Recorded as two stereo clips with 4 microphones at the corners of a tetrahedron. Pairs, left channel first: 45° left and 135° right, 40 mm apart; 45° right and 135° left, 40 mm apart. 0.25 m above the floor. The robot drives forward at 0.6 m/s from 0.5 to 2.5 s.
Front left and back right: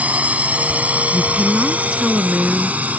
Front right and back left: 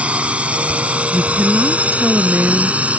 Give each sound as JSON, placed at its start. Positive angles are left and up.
{"t": 0.0, "sound": "a drone", "azimuth_deg": 180}
{"t": 1.1, "sound": "a woman speaking", "azimuth_deg": 155}